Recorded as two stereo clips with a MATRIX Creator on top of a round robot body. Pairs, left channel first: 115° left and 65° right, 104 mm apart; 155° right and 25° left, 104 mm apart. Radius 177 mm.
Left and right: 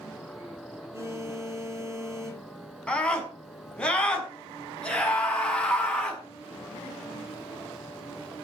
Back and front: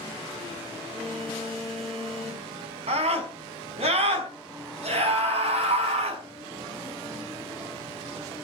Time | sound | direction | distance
0.9 | a phone buzzing | 5° right | 9.5 m
2.9 | a scream | 30° left | 5 m